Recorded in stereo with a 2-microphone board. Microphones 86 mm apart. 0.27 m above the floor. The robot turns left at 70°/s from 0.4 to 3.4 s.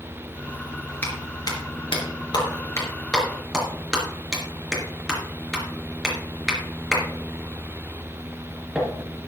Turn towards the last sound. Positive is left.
turn(degrees=-5)  # may be behind; listen again after turning